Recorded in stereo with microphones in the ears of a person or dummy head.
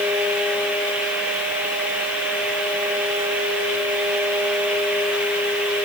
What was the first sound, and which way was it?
Only background noise.